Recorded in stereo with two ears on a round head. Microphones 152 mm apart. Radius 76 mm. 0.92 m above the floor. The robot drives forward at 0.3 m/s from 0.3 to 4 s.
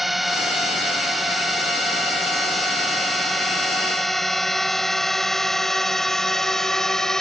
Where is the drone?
Centre (ahead or behind); by 7.2 s 5° left (ahead or behind).